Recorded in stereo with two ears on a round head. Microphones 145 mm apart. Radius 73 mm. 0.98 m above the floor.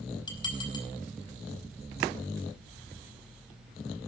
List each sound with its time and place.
0.3 s dishes clattering: 30° left (ahead or behind), 4.5 m